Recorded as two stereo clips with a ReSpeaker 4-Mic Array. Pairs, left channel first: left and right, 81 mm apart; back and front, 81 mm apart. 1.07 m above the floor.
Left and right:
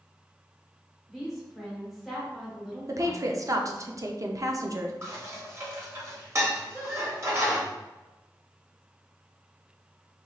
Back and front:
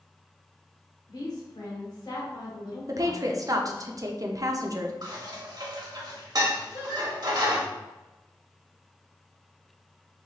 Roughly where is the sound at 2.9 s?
Ahead right.